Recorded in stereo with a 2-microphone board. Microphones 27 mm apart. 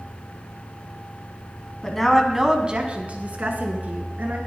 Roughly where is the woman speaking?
Centre.